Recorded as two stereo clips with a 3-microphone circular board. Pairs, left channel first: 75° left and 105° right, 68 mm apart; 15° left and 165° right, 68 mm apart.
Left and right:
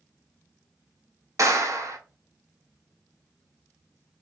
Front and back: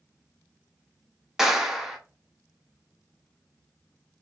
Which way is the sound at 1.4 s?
80° right.